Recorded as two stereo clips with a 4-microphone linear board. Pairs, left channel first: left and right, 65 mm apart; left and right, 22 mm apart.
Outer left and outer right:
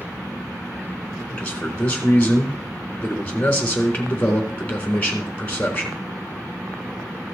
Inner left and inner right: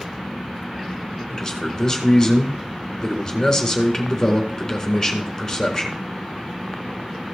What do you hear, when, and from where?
1.3 s a man speaking: 20° left (ahead or behind), 4 m